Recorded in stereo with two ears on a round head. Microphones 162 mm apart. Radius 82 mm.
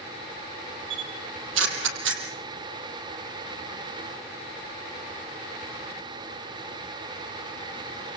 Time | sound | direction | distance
0.9 | a camera shutter | 80° right | 5 m